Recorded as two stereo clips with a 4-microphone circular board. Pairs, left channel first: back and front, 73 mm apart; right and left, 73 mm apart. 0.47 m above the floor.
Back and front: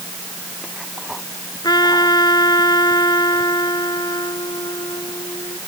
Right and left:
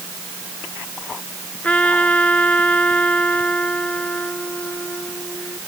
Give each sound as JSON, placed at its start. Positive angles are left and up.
{"t": 1.6, "sound": "a trumpet", "azimuth_deg": -160}